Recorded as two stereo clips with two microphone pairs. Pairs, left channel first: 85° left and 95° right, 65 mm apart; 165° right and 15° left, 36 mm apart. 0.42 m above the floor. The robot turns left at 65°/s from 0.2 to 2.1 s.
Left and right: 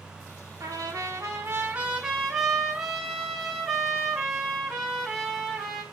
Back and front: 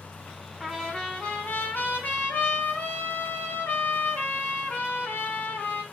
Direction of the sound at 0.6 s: 80° right.